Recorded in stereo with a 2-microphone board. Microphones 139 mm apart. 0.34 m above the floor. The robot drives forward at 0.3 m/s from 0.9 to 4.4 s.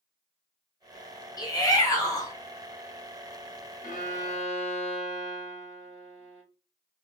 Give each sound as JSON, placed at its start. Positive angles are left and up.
{"t": 1.4, "sound": "a shout", "side_deg": 25, "distance_m": 0.9}
{"t": 3.8, "sound": "a violin", "side_deg": 60, "distance_m": 0.8}